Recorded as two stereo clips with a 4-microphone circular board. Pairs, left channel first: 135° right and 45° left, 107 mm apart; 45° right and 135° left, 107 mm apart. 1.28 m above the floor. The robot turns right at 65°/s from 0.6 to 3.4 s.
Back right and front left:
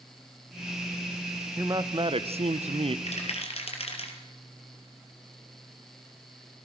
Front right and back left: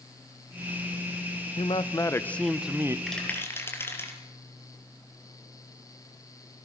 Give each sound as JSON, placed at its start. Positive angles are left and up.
{"t": 1.6, "sound": "a man speaking", "azimuth_deg": -20, "distance_m": 1.0}
{"t": 3.1, "sound": "a rattle", "azimuth_deg": -135, "distance_m": 4.5}